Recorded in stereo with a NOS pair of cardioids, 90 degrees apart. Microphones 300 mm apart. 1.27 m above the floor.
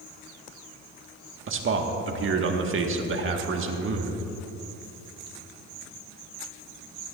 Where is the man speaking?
45° right, 1.6 m.